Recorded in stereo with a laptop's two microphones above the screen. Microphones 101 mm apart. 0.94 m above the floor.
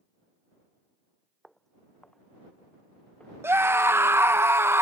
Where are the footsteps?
Centre (ahead or behind); by 3.3 s 10° left (ahead or behind).